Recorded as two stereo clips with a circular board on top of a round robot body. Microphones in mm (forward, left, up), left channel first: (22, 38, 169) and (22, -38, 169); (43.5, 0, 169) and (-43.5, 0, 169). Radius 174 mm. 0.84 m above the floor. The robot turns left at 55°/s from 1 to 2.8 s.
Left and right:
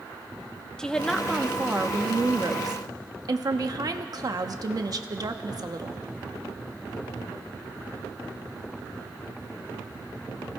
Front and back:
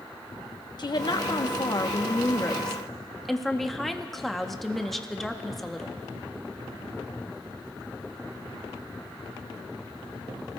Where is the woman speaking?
10° left, 1.0 m; by 6.0 s 90° right, 1.0 m.